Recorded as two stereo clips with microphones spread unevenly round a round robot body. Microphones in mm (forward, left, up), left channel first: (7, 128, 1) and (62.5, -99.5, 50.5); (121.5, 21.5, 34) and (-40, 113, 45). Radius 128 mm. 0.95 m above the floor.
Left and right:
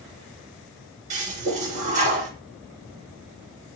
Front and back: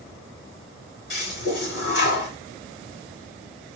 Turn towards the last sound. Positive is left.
turn(degrees=-45)